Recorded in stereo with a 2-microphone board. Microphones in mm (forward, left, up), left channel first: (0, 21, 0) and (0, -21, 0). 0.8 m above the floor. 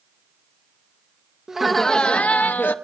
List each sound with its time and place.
1.5 s laughter: 15° right (ahead or behind), 0.5 m; by 2.8 s 50° left (ahead or behind), 0.9 m